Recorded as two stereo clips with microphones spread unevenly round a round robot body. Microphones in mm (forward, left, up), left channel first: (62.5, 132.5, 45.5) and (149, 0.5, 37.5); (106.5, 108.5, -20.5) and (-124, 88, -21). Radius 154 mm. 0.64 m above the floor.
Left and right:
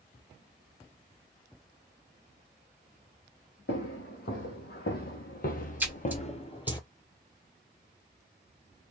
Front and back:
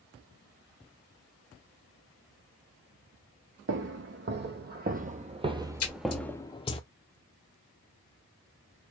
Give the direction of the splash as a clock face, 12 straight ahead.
11 o'clock.